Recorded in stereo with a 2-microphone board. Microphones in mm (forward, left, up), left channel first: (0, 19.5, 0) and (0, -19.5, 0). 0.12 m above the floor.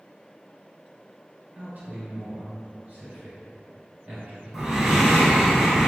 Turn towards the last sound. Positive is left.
turn(degrees=-10)  # may be behind; listen again after turning